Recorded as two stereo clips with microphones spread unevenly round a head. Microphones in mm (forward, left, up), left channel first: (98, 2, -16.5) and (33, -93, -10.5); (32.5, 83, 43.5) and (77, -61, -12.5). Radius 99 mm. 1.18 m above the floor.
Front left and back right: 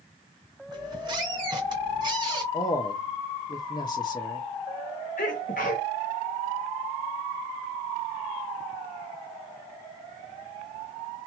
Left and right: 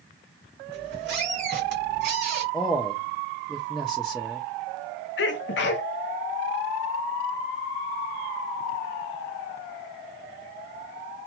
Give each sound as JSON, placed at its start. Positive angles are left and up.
{"t": 0.7, "sound": "a squeak", "azimuth_deg": -95, "distance_m": 1.5}
{"t": 2.5, "sound": "a man speaking", "azimuth_deg": 10, "distance_m": 0.7}
{"t": 5.2, "sound": "a sneeze", "azimuth_deg": 105, "distance_m": 0.7}